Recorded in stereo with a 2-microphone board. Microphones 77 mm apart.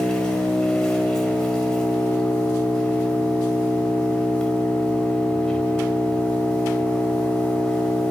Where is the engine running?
10° left (ahead or behind), 5 m.